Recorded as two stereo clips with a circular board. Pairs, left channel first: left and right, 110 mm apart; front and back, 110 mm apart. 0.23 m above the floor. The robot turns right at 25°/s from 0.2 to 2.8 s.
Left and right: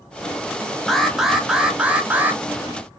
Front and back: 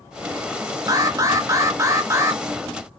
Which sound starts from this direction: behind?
An alarm, at 0.9 s.